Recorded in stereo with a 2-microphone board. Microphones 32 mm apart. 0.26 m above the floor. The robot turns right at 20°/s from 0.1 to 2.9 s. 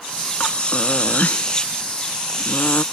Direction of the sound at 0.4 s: 45° left.